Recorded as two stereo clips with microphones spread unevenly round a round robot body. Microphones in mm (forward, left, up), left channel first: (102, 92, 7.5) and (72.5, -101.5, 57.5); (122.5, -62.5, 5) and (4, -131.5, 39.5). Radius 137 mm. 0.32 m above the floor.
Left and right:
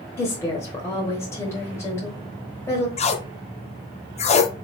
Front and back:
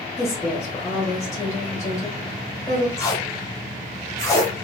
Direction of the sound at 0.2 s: 40° left.